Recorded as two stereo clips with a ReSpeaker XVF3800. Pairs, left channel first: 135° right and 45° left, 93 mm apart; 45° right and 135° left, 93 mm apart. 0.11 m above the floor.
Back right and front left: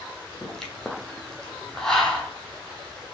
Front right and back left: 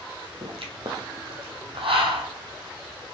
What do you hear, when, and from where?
0.4 s a pop: 140° left, 1.0 m